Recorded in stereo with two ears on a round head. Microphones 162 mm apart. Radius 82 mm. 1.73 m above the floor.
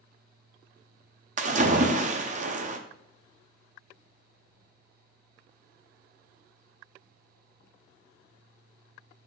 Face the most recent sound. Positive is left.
turn(degrees=-40)  # may be behind; listen again after turning